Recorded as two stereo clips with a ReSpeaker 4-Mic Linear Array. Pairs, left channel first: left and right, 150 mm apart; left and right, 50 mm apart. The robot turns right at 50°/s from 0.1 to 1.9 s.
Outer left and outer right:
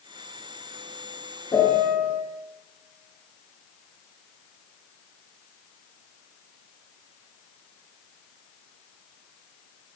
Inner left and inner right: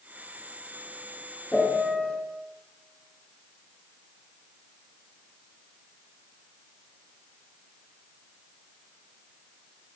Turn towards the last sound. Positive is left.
turn(degrees=40)  # may be behind; listen again after turning